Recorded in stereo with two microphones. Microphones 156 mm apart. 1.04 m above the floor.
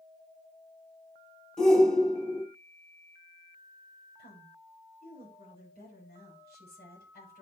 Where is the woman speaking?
85° left, 7.5 m.